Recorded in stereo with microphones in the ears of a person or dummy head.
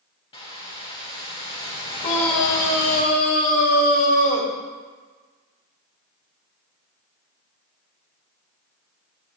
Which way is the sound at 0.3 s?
30° left (ahead or behind).